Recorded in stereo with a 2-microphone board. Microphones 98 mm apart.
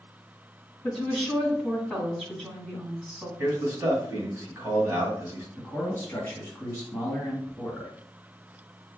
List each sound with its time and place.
0.8 s a woman speaking: 5° right (ahead or behind), 2.5 m
3.4 s a man speaking: 25° right (ahead or behind), 2.0 m
5.6 s a man speaking: 15° left (ahead or behind), 1.8 m